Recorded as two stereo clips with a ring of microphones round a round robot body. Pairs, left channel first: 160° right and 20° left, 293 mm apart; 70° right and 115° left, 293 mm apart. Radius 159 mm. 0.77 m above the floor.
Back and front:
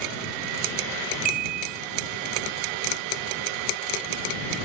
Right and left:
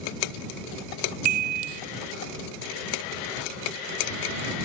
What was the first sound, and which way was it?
A chime, 85° left.